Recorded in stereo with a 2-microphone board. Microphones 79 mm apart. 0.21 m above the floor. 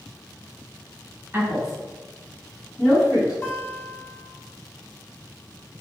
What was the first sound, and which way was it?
A woman speaking, 25° right (ahead or behind).